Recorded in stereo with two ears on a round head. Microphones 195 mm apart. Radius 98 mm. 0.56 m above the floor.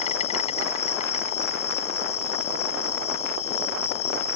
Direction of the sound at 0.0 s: 30° left (ahead or behind).